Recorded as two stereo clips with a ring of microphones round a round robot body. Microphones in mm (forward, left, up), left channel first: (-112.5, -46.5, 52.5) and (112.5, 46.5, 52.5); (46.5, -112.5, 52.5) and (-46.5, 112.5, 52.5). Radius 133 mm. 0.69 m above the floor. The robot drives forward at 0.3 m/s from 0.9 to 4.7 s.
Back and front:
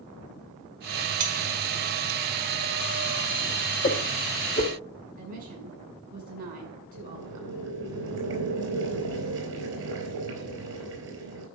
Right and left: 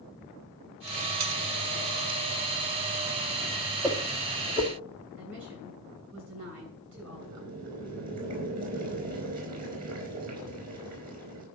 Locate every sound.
1.2 s cutlery clinking: 80° left, 1.7 m
3.8 s a whoosh: 175° right, 1.7 m
5.2 s a woman speaking: 75° left, 7 m
6.9 s boiling: 60° left, 4.5 m